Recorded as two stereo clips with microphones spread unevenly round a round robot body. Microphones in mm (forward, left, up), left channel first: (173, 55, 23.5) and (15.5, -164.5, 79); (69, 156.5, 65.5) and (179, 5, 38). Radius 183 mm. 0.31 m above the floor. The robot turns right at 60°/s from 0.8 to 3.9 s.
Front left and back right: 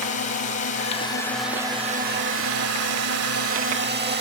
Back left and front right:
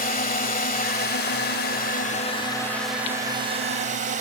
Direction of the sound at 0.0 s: 100° left.